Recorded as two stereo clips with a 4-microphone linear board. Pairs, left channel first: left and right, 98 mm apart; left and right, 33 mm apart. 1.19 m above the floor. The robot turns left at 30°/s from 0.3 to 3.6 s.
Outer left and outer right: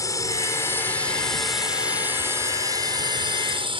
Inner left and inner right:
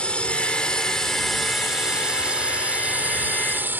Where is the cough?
No cough in this recording.